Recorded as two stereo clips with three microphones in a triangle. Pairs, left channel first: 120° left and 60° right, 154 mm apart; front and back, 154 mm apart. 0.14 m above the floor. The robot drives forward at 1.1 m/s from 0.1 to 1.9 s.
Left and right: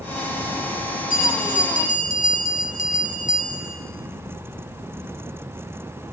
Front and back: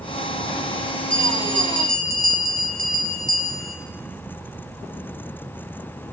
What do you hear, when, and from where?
1.1 s a bell: 150° left, 3 m; by 3.8 s 155° left, 4 m